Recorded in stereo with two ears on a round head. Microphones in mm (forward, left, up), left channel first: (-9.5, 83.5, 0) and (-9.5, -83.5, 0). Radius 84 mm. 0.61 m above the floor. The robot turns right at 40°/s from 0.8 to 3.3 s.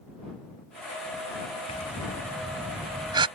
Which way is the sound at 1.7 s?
145° left.